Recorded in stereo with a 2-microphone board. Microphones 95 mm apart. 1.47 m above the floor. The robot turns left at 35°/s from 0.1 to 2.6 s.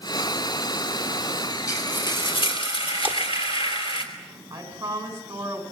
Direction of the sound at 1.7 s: 145° left.